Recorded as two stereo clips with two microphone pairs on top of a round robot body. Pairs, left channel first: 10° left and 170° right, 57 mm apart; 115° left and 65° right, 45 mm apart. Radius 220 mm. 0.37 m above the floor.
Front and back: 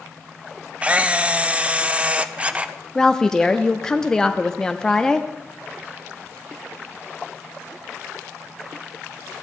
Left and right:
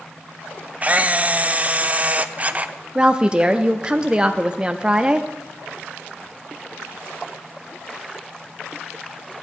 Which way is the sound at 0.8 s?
110° right.